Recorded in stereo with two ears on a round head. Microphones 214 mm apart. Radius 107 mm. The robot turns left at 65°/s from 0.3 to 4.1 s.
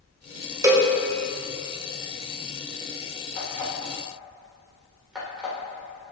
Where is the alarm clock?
45° left (ahead or behind), 2 m; by 6.1 s 5° right (ahead or behind), 2 m.